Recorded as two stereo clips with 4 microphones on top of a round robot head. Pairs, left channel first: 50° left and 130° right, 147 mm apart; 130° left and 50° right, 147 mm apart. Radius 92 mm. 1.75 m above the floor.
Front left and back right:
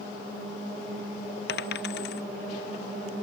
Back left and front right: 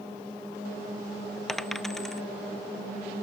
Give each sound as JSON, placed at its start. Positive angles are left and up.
{"t": 1.5, "sound": "a dropped coin", "azimuth_deg": 40}